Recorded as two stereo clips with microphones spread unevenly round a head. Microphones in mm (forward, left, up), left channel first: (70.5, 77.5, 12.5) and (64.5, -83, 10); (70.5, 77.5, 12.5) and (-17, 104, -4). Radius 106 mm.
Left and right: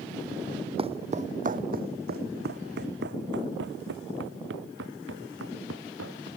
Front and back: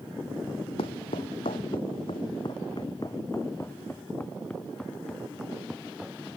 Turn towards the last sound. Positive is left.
turn(degrees=-110)